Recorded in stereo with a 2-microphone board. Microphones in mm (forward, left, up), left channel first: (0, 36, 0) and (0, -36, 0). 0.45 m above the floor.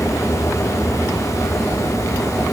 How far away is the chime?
I don't hear a chime.